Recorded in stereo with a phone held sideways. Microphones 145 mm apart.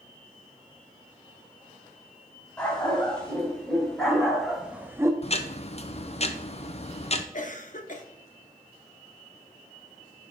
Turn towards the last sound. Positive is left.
turn(degrees=55)  # may be behind; listen again after turning